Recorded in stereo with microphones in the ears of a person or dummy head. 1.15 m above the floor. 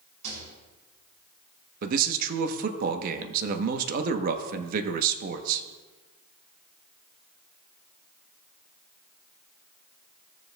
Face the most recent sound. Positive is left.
turn(degrees=-50)  # may be behind; listen again after turning